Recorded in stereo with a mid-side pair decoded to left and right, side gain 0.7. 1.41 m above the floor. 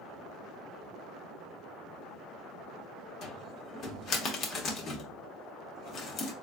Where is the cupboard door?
45° left, 1.2 m.